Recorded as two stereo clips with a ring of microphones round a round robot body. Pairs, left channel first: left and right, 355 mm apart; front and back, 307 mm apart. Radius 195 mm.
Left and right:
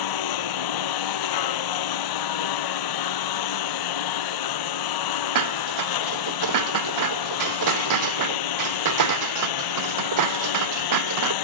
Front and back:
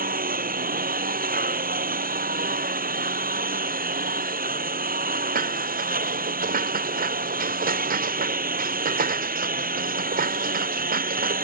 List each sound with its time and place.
0.0 s a lawn mower: 120° left
5.3 s dishes clattering: 120° right